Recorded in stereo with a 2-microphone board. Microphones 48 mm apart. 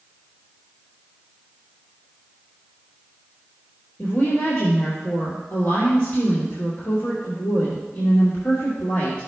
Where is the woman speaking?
65° left (ahead or behind), 3 m.